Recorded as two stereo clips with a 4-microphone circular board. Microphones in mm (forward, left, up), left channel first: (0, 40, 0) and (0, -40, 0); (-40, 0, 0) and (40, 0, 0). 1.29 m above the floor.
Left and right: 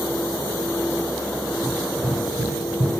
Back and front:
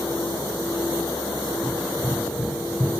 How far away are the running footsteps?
About 2.5 m.